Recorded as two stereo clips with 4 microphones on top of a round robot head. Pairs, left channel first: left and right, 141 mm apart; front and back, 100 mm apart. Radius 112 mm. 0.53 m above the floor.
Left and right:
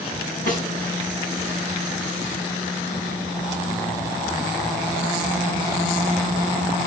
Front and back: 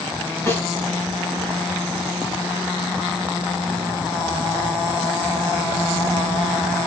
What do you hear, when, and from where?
0.5 s a snare drum: 65° left, 3.5 m